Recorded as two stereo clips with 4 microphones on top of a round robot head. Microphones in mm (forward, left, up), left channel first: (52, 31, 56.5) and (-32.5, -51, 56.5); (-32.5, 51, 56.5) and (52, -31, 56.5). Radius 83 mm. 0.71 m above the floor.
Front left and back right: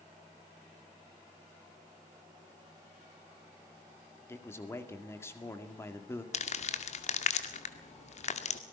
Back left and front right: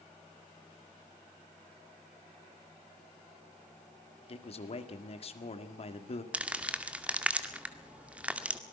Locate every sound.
4.3 s a man speaking: 110° left, 2 m
6.3 s crumpling: 35° left, 2 m